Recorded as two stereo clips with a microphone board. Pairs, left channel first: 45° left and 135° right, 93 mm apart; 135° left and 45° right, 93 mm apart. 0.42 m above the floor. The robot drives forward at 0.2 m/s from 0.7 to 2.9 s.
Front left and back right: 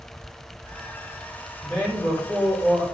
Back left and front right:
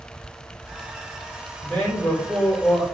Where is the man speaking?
80° left, 1.3 m; by 2.8 s 105° left, 1.3 m.